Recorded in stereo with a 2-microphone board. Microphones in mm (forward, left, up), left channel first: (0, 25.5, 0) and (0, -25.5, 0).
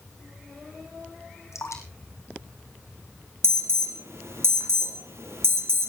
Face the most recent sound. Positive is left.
turn(degrees=-60)  # may be behind; listen again after turning